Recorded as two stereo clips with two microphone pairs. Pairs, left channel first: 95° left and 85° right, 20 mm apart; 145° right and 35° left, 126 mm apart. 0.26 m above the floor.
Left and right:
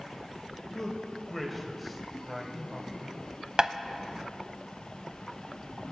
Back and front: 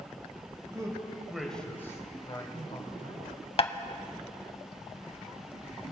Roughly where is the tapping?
Behind right.